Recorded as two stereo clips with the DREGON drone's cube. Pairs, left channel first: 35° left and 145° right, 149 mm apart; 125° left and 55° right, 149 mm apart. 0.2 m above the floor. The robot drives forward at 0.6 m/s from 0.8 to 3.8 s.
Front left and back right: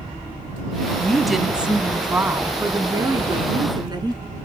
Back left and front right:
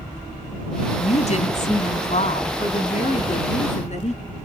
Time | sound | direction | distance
1.0 | a woman speaking | 115° left | 1.5 m